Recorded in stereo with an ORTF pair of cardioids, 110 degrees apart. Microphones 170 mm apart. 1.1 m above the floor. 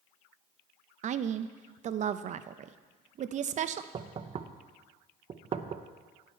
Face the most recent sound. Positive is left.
turn(degrees=-35)